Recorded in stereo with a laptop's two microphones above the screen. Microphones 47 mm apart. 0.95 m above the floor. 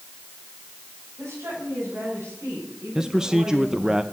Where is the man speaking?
10° right (ahead or behind), 0.6 m.